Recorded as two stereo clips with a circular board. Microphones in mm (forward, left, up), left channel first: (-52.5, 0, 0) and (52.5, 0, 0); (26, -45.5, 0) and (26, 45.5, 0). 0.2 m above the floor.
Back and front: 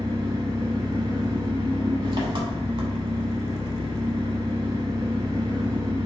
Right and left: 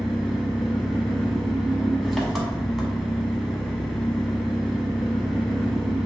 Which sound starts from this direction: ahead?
An engine running, at 0.0 s.